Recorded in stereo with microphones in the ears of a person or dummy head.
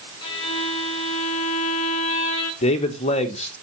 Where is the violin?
25° left (ahead or behind), 1.5 m.